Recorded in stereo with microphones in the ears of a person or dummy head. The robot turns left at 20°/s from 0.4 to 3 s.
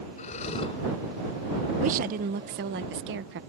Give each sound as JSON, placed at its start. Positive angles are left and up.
{"t": 0.2, "sound": "breathing", "side_deg": 40}
{"t": 1.8, "sound": "a woman speaking", "side_deg": -45}